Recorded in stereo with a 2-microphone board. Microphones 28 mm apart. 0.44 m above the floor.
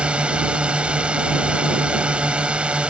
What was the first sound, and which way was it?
A drone, 40° right (ahead or behind).